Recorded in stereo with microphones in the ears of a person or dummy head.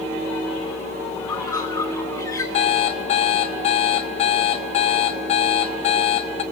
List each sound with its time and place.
1.2 s a bird: 15° left (ahead or behind), 1.8 m
2.5 s an alarm clock: 40° left (ahead or behind), 1.5 m